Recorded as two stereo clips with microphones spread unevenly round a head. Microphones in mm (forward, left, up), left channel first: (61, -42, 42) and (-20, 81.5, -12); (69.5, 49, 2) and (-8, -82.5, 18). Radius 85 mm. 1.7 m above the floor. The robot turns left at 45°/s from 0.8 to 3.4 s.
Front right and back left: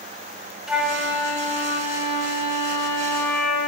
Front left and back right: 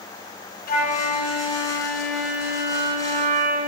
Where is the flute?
30° left, 3 m; by 3.7 s 90° right, 3 m.